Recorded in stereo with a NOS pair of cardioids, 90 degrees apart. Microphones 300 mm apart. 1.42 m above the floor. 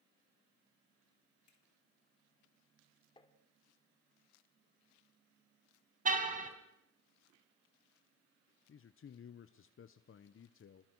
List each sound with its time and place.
1.5 s a finger snap: 65° left, 4.5 m
3.2 s tapping: 15° left, 2.5 m
6.0 s a car horn: 25° right, 4 m
8.7 s a man speaking: 45° left, 1.0 m